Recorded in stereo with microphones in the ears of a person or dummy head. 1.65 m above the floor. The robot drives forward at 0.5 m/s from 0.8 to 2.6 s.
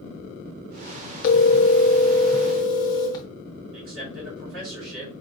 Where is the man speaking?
75° right (ahead or behind), 3 m.